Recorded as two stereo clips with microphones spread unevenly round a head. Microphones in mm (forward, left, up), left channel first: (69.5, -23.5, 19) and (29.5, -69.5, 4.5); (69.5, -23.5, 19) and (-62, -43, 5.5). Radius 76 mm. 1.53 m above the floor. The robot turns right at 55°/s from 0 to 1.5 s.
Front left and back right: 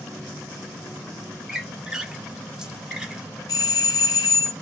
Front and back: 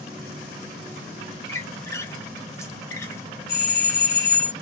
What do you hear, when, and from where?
1.5 s a squeak: 40° right, 0.8 m
3.5 s a doorbell: 35° left, 0.8 m